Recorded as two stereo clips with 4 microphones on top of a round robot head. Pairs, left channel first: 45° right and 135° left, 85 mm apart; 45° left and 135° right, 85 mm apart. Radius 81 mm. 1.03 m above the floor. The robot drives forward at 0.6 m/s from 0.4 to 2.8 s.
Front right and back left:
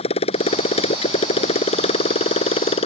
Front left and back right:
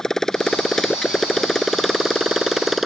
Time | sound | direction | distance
0.0 | a motorcycle | 40° right | ?